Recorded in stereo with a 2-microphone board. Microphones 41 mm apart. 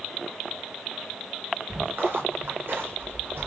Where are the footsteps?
60° right (ahead or behind), 7 m.